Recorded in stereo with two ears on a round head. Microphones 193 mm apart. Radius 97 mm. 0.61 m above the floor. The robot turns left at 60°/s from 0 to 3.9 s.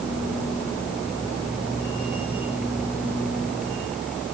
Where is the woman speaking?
I don't hear a woman speaking.